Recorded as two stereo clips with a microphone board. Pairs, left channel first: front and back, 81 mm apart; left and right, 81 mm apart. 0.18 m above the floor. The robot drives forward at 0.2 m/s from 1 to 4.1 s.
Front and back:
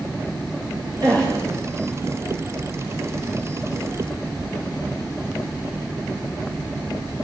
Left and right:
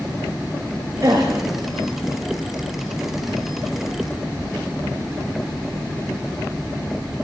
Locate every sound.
1.0 s a gasp: 140° right, 9 m